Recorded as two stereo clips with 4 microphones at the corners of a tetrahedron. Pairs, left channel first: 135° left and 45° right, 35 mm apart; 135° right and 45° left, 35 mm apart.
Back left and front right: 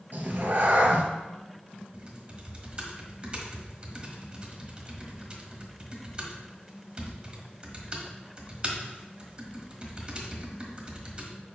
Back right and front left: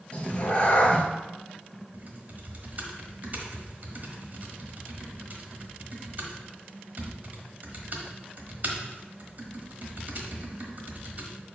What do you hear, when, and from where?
0.1 s a cat meowing: 80° right, 1.1 m
1.9 s typing on a keyboard: 10° left, 1.3 m